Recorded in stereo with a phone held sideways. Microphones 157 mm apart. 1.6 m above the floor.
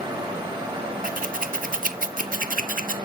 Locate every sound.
0.0 s a fan: 30° right (ahead or behind), 1.3 m
1.0 s scissors: 60° right (ahead or behind), 0.5 m